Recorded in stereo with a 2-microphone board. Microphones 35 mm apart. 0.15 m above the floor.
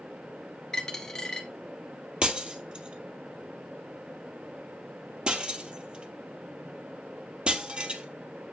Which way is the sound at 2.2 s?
25° right (ahead or behind).